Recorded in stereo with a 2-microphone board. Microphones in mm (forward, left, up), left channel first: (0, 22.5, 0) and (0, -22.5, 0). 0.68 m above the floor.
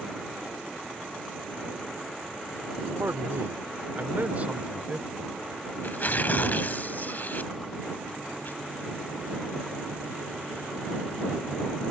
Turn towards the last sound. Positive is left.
turn(degrees=40)  # may be behind; listen again after turning